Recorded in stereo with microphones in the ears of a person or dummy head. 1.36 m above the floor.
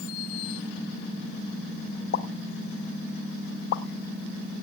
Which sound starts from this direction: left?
A pop, at 2.1 s.